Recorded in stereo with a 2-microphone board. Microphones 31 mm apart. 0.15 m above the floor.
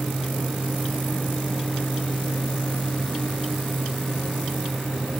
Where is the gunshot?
I don't hear a gunshot.